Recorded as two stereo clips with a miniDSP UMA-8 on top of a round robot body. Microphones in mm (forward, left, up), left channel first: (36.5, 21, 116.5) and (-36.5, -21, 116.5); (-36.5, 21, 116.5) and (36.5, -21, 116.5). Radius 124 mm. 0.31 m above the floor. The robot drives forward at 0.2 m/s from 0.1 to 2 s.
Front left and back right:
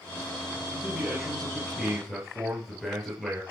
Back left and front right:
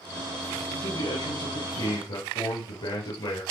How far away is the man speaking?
About 7.5 m.